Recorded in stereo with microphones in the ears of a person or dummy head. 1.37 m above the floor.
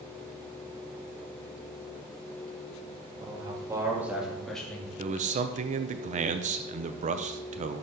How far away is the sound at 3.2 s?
About 2.5 m.